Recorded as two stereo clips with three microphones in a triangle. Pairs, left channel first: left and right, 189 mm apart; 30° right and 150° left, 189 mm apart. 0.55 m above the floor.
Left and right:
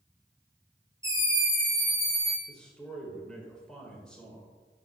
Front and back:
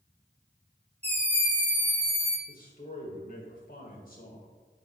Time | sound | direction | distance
1.0 | a scream | 160° right | 1.9 m
2.5 | a man speaking | 5° left | 1.7 m